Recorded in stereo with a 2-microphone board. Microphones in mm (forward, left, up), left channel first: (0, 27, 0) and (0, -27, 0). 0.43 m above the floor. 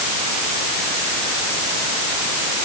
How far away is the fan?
I don't hear a fan.